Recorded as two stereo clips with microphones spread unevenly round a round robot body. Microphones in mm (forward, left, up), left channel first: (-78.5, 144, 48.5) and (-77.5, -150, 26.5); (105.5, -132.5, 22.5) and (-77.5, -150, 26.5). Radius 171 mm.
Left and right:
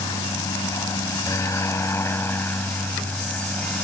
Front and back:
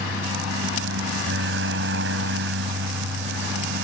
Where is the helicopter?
165° left; by 3.9 s 175° left.